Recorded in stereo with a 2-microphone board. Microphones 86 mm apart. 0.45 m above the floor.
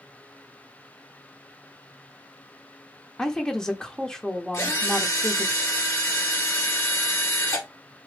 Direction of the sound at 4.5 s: 35° left (ahead or behind).